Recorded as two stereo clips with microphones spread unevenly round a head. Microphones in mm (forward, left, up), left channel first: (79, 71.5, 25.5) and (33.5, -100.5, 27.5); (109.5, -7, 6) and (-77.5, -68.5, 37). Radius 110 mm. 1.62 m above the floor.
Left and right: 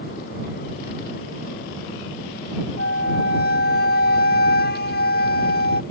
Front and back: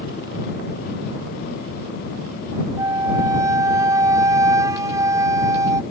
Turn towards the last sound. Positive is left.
turn(degrees=125)